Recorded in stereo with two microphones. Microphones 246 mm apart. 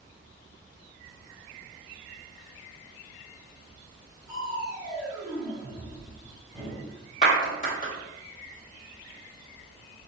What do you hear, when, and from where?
4.3 s crushing: centre (ahead or behind), 1.5 m
7.2 s a clap: 30° left (ahead or behind), 1.4 m